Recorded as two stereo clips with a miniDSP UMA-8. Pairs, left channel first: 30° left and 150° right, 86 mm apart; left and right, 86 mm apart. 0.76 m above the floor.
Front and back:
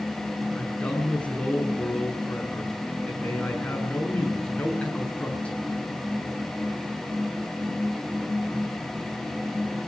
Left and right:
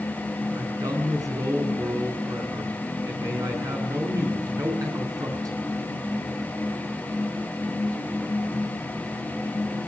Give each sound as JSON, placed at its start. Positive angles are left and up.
{"t": 0.6, "sound": "a man speaking", "azimuth_deg": -45, "distance_m": 8.0}